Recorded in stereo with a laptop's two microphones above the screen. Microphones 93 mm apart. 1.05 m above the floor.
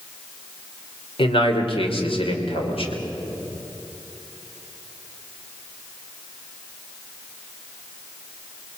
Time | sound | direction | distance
1.2 | a man speaking | 75° left (ahead or behind) | 3 m